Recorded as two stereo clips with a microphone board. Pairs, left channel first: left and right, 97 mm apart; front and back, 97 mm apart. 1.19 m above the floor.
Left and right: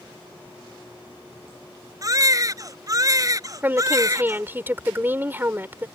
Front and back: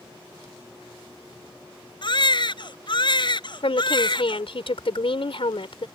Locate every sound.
2.0 s a baby crying: 35° right
3.6 s a woman speaking: 20° right